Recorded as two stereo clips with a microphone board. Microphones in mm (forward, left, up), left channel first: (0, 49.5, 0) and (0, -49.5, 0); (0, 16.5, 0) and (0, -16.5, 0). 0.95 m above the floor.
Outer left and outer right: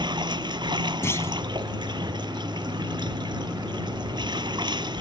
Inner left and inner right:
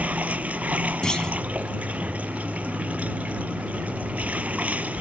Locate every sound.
0.0 s running water: 50° right (ahead or behind)
1.0 s a clunk: 25° left (ahead or behind)